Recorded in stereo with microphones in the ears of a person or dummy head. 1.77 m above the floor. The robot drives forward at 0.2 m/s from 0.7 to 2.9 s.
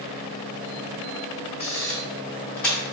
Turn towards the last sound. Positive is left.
turn(degrees=5)  # may be behind; listen again after turning